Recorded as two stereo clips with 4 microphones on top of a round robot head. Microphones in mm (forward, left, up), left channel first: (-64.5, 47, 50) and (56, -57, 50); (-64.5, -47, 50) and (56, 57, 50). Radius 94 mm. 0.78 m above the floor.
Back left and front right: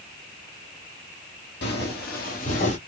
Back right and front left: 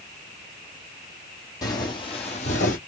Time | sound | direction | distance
1.6 | footsteps | 155° left | 1.4 m